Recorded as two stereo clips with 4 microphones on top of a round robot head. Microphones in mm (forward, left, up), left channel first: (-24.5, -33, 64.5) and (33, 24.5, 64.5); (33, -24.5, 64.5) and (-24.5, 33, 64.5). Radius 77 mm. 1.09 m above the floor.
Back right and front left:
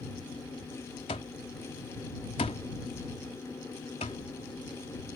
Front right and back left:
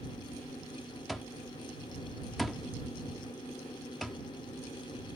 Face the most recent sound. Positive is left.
turn(degrees=-135)